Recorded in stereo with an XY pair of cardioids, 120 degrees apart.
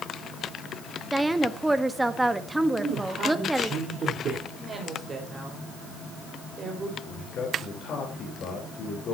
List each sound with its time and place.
1.1 s a woman speaking: 10° right, 1.3 m
2.8 s a man speaking: 50° right, 4 m
4.6 s a woman speaking: 30° right, 4.5 m
7.0 s a man speaking: 55° left, 4 m